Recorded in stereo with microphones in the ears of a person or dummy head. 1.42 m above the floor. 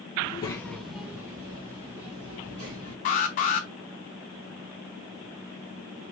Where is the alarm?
30° left (ahead or behind), 0.5 m.